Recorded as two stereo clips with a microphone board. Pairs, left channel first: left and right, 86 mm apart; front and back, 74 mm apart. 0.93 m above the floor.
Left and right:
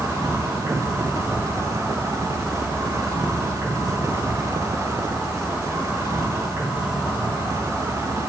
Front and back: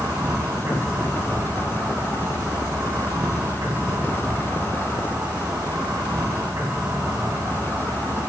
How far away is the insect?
About 3.5 m.